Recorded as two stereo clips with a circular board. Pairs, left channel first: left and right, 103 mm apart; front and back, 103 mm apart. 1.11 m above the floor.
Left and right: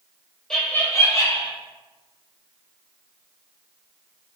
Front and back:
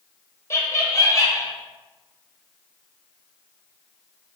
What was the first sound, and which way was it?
Laughter, 10° left.